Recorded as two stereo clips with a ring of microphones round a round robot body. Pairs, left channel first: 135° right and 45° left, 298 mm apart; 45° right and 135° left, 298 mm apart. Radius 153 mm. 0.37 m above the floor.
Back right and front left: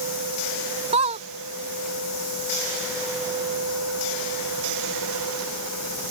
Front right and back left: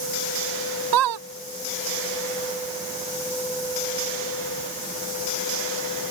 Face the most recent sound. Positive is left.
turn(degrees=115)